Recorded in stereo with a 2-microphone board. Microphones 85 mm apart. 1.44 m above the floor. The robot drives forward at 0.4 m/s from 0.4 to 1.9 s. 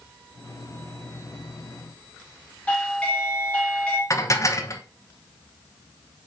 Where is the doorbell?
15° left (ahead or behind), 1.8 m.